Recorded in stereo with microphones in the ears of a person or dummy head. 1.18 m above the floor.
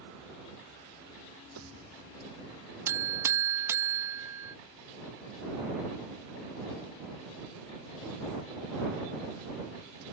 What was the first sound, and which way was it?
A pop, 75° right (ahead or behind).